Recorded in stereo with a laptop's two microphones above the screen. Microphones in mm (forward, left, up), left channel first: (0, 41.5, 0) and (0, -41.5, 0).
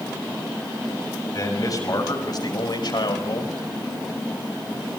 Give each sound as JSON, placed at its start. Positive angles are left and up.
{"t": 1.3, "sound": "a man speaking", "side_deg": 45, "distance_m": 6.5}